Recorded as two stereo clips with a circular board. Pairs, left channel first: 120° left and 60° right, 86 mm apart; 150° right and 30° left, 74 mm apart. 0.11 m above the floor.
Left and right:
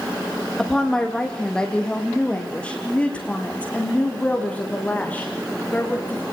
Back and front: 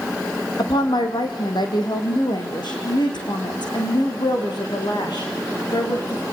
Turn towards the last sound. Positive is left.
turn(degrees=-170)